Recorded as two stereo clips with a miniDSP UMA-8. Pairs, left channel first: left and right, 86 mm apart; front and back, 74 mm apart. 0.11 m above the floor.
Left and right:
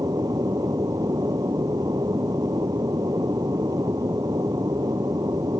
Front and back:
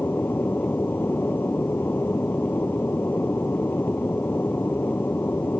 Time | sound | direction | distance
0.0 | an aircraft | 55° right | ?